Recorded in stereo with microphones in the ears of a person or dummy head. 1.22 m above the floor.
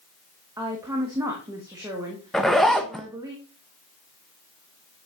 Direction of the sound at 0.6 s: 15° right (ahead or behind).